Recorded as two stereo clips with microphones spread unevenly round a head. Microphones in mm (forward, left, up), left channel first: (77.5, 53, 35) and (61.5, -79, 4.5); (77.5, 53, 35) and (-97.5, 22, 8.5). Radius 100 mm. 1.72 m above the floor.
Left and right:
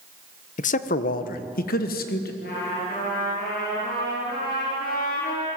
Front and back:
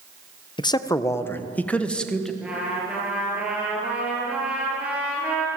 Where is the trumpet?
105° left, 8 m.